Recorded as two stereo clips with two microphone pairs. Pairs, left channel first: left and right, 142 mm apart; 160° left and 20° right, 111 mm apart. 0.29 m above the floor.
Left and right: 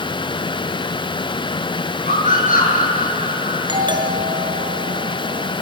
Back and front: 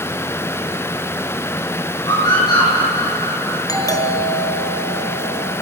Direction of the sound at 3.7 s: 145° right.